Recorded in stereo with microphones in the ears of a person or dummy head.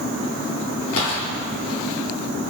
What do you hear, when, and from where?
1.0 s a gunshot: 80° left, 2.5 m